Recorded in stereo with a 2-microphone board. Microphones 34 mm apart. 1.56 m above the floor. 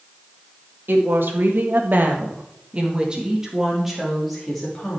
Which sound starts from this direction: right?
A woman speaking, at 0.9 s.